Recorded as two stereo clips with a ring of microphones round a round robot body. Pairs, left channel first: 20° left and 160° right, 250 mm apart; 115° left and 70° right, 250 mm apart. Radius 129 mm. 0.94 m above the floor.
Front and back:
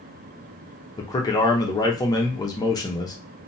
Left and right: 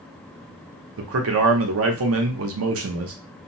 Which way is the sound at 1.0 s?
50° right.